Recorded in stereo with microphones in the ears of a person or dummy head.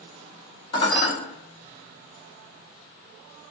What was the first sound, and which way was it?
Dishes clattering, 25° left (ahead or behind).